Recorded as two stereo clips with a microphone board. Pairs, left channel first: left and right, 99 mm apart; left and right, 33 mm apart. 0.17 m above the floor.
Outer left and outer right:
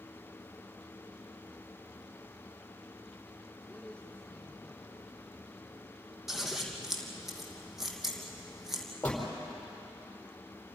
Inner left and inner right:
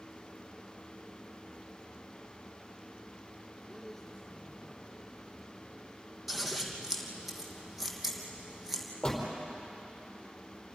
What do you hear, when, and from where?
3.6 s a man speaking: 10° left (ahead or behind), 6 m; by 5.9 s 5° left (ahead or behind), 7 m
6.3 s scissors: 5° right (ahead or behind), 2.5 m
9.0 s a door slam: 15° left (ahead or behind), 5 m